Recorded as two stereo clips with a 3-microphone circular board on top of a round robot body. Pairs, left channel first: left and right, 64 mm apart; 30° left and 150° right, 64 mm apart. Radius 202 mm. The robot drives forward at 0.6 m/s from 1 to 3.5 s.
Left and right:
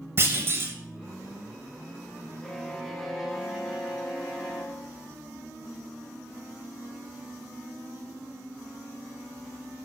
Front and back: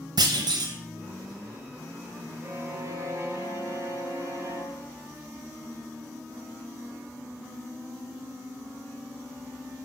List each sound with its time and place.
0.2 s a clunk: 145° right, 0.7 m
2.4 s a violin: 170° left, 1.2 m; by 4.9 s 175° left, 1.7 m